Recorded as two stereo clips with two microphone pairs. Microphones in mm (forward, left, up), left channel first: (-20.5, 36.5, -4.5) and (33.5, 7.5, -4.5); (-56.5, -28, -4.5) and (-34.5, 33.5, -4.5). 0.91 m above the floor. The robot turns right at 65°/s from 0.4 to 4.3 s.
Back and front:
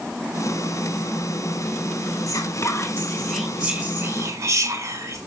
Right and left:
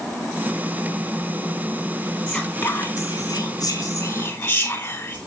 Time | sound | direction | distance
2.3 | whispering | 155° left | 3 m